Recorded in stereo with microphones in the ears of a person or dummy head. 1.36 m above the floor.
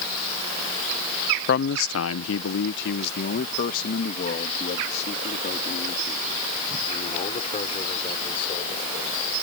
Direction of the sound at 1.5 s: 50° left (ahead or behind).